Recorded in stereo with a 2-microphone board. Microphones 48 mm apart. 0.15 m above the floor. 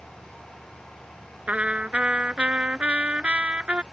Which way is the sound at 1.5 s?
25° right (ahead or behind).